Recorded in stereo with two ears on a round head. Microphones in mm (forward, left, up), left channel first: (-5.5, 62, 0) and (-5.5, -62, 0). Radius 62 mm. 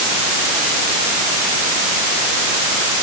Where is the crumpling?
I don't hear crumpling.